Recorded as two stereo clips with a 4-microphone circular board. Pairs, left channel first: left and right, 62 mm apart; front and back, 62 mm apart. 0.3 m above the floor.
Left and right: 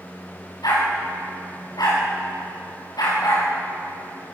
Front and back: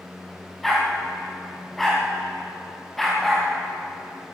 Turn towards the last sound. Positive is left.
turn(degrees=90)